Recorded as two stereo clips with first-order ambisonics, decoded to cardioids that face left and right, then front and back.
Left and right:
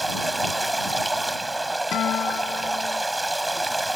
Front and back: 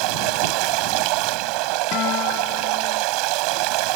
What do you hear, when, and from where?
0.0 s running water: 175° right
1.9 s a guitar: 40° left